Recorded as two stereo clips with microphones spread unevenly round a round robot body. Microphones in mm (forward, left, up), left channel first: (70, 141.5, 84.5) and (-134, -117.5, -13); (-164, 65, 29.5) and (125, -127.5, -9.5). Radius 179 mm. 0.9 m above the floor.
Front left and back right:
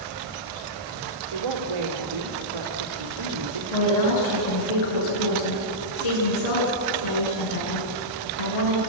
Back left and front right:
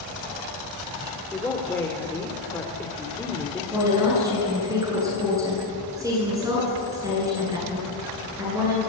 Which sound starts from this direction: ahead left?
A woman speaking, at 3.7 s.